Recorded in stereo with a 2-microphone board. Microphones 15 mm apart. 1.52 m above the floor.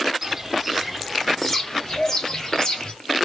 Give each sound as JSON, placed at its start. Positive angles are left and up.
{"t": 0.2, "sound": "footsteps", "side_deg": -20, "distance_m": 1.6}